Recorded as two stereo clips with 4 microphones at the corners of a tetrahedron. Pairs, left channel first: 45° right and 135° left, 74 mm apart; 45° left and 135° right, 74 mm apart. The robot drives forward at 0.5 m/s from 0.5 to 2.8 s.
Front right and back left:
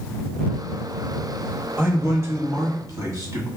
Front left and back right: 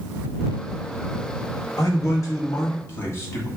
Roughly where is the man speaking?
Left.